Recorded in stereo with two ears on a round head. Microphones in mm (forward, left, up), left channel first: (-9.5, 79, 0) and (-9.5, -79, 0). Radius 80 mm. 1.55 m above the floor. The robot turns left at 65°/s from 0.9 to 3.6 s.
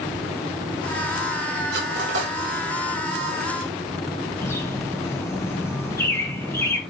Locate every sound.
1.7 s cutlery clinking: 60° right (ahead or behind), 4 m; by 2.3 s 75° right (ahead or behind), 4 m
4.4 s a bird: 15° left (ahead or behind), 1.5 m